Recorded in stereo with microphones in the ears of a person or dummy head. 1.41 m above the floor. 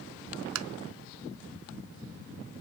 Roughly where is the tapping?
Right.